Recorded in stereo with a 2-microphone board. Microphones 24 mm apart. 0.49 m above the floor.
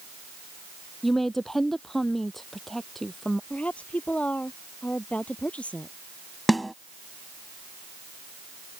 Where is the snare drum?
5° left (ahead or behind).